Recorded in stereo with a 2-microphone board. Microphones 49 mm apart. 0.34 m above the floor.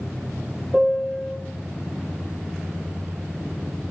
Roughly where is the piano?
Centre.